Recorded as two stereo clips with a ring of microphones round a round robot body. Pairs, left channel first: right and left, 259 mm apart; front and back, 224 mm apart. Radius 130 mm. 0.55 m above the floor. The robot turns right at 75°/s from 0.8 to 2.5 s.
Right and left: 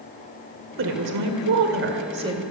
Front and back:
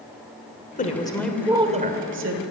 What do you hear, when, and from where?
0.8 s a woman speaking: 50° left, 2 m; by 2.4 s 170° left, 2 m